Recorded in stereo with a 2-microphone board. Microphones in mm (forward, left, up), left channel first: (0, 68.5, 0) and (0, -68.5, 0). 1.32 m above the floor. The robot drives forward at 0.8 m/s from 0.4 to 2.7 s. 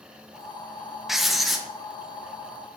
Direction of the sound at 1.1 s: Centre (ahead or behind).